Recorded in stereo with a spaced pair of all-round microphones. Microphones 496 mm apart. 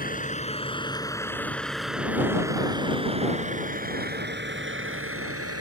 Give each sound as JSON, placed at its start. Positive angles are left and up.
{"t": 0.0, "sound": "a vehicle", "side_deg": 15}